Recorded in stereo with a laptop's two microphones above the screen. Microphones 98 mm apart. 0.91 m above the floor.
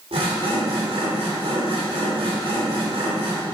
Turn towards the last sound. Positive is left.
turn(degrees=-85)